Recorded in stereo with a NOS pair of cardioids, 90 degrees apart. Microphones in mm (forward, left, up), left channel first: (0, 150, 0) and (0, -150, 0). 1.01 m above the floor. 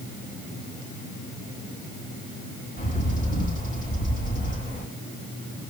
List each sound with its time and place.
2.8 s a bird: 25° left, 6 m